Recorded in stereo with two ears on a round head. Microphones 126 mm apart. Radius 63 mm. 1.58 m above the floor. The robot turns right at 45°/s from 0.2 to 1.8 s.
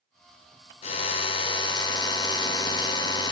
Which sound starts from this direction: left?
A drill, at 0.8 s.